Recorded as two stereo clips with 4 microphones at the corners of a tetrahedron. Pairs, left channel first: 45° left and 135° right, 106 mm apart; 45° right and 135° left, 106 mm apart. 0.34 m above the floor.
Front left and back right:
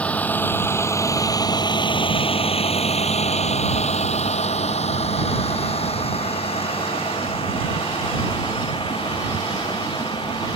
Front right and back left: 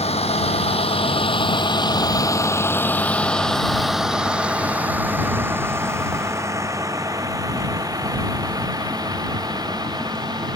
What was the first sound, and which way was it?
A vehicle, 35° right.